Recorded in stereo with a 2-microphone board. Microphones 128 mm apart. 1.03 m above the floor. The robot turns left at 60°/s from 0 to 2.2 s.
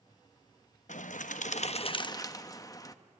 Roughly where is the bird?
Left.